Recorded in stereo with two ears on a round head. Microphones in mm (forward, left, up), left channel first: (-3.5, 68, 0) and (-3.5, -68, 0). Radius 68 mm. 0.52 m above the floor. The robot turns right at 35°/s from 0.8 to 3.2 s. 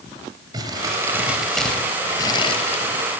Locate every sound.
0.5 s crumpling: 25° right (ahead or behind), 3.5 m; by 3.2 s 60° left (ahead or behind), 3.5 m